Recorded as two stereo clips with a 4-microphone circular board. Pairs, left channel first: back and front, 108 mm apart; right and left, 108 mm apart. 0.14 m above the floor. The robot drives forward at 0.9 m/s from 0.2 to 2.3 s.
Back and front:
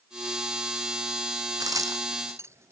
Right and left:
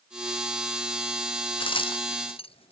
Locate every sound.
1.6 s a crack: 55° right; by 2.7 s 65° right